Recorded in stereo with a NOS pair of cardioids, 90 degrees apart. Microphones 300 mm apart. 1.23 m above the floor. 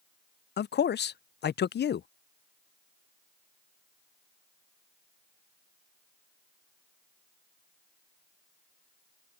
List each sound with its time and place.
0.6 s a man speaking: 35° left